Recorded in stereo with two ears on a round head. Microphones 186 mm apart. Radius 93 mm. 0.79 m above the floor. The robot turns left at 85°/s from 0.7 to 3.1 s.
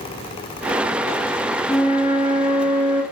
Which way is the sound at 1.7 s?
5° right (ahead or behind).